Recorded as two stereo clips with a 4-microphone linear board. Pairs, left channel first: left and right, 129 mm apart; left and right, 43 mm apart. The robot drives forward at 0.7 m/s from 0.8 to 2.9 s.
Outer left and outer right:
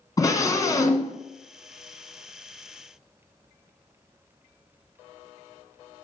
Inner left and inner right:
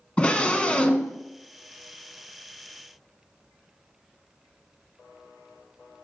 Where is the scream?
30° left (ahead or behind), 1.2 m; by 1.2 s 25° left (ahead or behind), 1.2 m.